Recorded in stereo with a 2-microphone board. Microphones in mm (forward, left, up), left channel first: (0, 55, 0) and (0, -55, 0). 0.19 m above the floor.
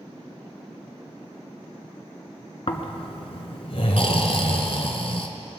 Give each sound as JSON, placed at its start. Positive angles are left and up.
{"t": 2.7, "sound": "snoring", "side_deg": 60, "distance_m": 1.1}